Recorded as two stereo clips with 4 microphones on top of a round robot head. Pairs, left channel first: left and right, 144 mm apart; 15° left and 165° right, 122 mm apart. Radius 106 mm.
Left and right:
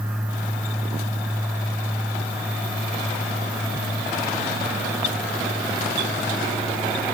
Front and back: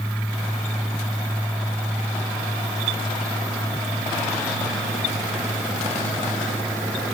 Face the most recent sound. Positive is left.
No sound to turn to.